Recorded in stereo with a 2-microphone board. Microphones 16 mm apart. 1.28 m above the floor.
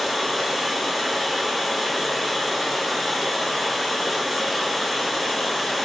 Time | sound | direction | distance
0.0 | running water | centre (ahead or behind) | 1.8 m